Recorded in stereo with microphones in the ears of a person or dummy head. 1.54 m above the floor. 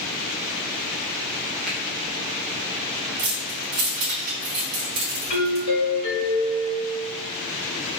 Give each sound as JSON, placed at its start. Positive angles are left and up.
{"t": 1.7, "sound": "a finger snap", "side_deg": 0, "distance_m": 1.5}
{"t": 3.2, "sound": "keys jangling", "side_deg": -60, "distance_m": 1.0}
{"t": 5.3, "sound": "a doorbell", "side_deg": 70, "distance_m": 1.5}